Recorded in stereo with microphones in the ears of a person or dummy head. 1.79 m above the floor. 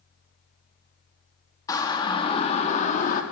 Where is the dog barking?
I don't hear a dog barking.